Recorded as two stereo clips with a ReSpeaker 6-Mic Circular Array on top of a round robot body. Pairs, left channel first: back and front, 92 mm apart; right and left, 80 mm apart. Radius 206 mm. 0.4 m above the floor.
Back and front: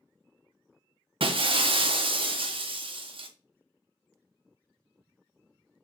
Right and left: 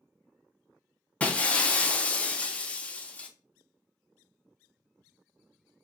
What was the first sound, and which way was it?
Breaking glass, 20° right.